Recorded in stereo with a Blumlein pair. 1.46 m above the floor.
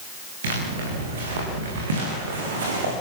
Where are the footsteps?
60° right, 8 m.